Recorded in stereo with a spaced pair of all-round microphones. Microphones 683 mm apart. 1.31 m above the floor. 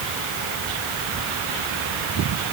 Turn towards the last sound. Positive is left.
No sound to turn to.